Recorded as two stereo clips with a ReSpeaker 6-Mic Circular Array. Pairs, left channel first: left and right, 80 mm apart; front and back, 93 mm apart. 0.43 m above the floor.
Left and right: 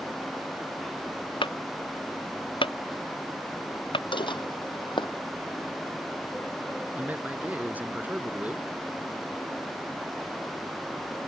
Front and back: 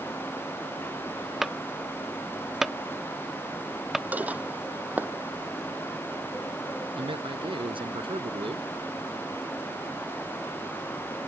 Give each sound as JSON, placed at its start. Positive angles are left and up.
{"t": 1.4, "sound": "a clunk", "azimuth_deg": 95}
{"t": 4.1, "sound": "dishes clattering", "azimuth_deg": 105}
{"t": 7.0, "sound": "a man speaking", "azimuth_deg": -160}